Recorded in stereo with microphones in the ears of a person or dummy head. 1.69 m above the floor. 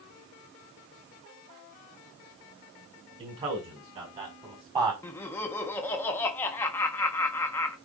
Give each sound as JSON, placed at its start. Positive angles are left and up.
{"t": 3.2, "sound": "a man speaking", "side_deg": -25, "distance_m": 6.0}
{"t": 5.0, "sound": "laughter", "side_deg": 15, "distance_m": 1.2}